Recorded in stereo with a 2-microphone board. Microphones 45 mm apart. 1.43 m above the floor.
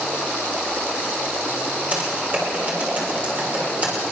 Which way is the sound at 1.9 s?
35° right (ahead or behind).